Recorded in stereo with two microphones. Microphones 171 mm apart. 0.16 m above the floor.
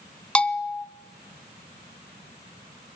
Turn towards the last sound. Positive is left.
turn(degrees=5)  # may be behind; listen again after turning